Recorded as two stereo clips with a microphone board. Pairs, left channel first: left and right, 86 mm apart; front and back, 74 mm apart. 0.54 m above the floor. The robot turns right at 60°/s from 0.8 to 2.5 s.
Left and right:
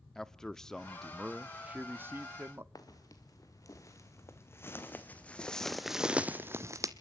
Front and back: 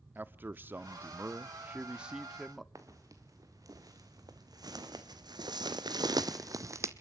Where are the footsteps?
135° left, 3 m; by 6.9 s 130° right, 1.2 m.